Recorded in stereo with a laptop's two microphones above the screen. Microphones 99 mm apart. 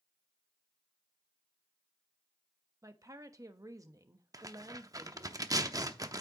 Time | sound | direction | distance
2.8 | a woman speaking | 35° right (ahead or behind) | 1.0 m
4.3 | tearing paper | 40° right (ahead or behind) | 0.7 m